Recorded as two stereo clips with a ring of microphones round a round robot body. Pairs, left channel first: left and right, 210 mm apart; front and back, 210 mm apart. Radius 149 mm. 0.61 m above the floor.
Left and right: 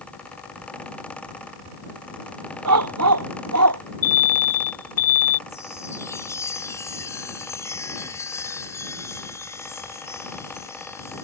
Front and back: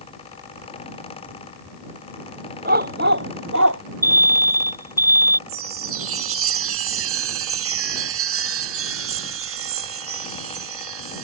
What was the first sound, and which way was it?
A dog barking, 115° right.